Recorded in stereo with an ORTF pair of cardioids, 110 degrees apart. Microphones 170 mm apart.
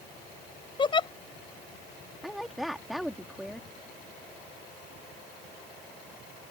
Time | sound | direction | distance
0.8 | a giggle | 25° left | ?
2.2 | a woman speaking | straight ahead | ?